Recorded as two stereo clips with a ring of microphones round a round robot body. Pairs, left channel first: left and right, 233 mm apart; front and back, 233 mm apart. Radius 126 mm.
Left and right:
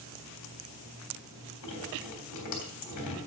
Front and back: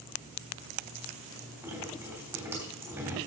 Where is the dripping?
100° left, 3 m.